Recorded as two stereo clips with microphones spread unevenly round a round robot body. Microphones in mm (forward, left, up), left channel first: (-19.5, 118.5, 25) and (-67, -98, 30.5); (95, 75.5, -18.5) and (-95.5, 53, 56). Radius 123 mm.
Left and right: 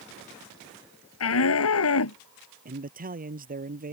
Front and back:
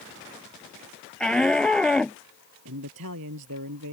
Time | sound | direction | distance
1.2 | a shout | 95° left | ?
2.6 | a man speaking | 155° right | ?